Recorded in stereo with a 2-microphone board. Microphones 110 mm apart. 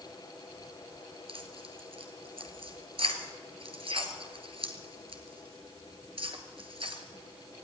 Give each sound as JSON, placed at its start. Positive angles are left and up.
{"t": 1.3, "sound": "tearing paper", "side_deg": -55, "distance_m": 1.7}